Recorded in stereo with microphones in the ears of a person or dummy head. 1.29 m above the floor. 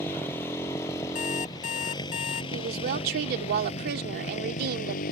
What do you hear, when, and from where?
0.0 s a motorcycle: 10° left (ahead or behind); by 5.1 s 45° left (ahead or behind)
1.1 s an alarm clock: 25° left (ahead or behind)
2.5 s a woman speaking: 55° right (ahead or behind)